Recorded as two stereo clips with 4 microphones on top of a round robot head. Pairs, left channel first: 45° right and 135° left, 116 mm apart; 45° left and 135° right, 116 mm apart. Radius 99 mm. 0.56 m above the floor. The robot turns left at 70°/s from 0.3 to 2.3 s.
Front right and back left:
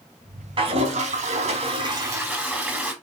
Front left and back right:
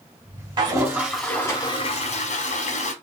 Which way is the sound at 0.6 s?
Straight behind.